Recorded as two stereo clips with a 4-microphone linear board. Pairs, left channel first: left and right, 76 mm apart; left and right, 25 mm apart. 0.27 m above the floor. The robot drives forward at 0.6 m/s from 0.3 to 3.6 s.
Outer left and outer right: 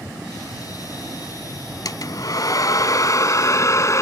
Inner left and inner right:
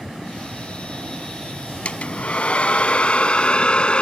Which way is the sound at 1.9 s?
60° left (ahead or behind).